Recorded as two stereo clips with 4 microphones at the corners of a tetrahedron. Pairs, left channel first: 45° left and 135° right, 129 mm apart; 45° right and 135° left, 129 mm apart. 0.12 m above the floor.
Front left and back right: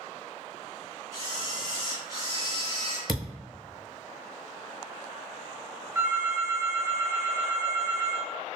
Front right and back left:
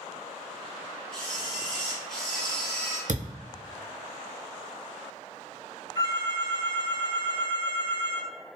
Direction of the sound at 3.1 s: 135° left.